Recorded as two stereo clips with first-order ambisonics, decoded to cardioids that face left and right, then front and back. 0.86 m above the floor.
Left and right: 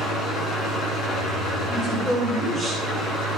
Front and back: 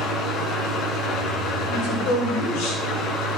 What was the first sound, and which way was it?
An engine running, 35° left.